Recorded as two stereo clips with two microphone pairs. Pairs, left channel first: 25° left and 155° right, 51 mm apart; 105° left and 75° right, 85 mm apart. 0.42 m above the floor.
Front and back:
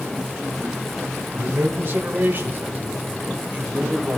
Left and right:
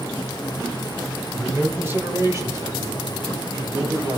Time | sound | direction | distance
1.3 | a man speaking | 155° right | 1.3 m